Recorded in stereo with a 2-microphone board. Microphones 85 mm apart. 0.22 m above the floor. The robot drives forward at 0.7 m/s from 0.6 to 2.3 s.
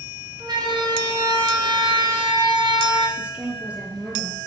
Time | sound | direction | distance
0.4 | a siren | 55° right (ahead or behind) | 4.5 m
3.2 | a woman speaking | 15° right (ahead or behind) | 4 m